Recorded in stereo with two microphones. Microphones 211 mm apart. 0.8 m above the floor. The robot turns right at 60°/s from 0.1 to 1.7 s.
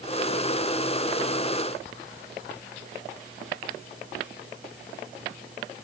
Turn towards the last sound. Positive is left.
No sound to turn to.